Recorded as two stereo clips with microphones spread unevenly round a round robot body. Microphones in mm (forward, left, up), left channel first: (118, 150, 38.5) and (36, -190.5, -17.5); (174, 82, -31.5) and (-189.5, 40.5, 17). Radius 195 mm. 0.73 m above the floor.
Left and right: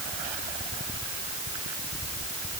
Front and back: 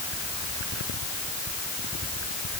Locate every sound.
Only background noise.